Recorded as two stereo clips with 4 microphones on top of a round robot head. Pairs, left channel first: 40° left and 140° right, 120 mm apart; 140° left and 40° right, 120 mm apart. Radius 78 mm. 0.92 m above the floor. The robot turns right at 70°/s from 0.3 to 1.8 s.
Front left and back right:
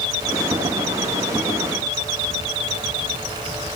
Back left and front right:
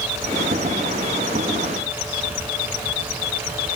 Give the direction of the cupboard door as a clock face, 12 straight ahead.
No cupboard door in this recording.